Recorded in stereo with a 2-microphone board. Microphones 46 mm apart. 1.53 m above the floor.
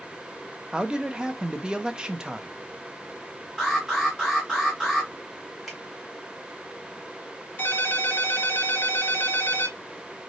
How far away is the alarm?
About 2.5 m.